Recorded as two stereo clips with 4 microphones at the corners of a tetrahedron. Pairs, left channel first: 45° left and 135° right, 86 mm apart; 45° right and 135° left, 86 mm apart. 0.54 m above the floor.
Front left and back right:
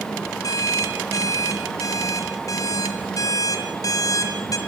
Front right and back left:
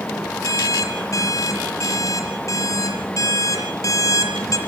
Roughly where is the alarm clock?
Ahead.